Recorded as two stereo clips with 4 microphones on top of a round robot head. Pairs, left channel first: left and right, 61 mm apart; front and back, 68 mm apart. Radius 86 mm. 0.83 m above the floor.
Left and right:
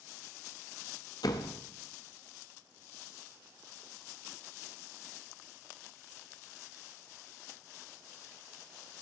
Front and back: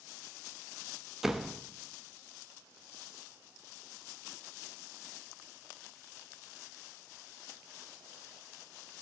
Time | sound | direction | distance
1.2 | a door slam | 95° left | 0.7 m